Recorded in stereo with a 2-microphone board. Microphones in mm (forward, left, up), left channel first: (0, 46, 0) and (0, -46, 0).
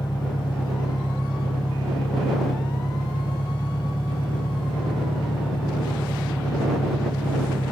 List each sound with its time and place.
0.0 s an engine running: 60° left (ahead or behind)